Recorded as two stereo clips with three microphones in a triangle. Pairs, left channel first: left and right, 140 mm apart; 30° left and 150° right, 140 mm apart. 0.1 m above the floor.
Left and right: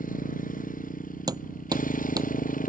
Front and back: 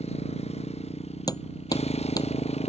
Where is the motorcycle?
70° left.